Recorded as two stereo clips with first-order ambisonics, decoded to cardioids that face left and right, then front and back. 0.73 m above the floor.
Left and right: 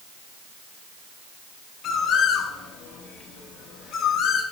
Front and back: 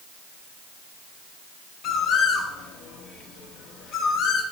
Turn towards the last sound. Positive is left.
turn(degrees=40)